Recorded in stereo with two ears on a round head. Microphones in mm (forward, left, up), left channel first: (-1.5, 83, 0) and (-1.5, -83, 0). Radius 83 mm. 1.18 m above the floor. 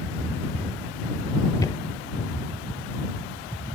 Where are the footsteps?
15° left (ahead or behind); by 3.3 s 55° left (ahead or behind).